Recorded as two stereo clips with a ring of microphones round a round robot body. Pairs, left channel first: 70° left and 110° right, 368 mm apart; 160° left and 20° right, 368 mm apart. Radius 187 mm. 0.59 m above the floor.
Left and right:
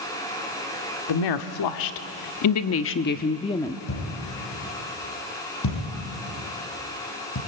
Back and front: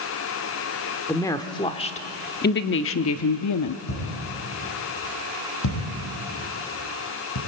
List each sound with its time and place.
1.1 s a woman speaking: 75° left, 1.5 m; by 3.8 s 150° left, 0.9 m
3.9 s a thud: 115° left, 6.5 m